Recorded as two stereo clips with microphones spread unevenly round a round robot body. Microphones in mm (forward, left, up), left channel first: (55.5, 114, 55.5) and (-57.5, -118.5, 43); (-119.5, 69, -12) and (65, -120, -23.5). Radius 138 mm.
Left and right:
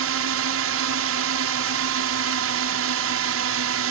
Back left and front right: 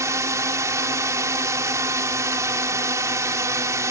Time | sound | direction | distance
0.0 | a drone | 120° right | ?